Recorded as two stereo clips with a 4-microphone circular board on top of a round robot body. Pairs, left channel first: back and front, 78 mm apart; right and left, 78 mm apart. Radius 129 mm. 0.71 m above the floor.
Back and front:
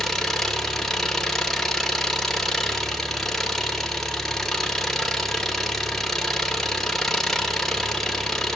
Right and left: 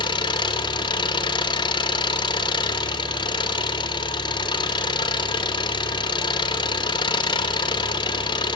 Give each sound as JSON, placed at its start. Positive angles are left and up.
{"t": 0.0, "sound": "an engine running", "azimuth_deg": -95, "distance_m": 2.0}